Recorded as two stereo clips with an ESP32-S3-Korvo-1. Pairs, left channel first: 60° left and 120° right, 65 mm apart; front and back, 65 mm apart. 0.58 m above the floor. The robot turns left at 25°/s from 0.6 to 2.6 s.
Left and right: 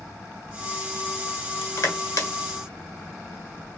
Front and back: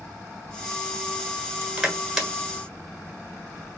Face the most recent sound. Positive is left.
turn(degrees=80)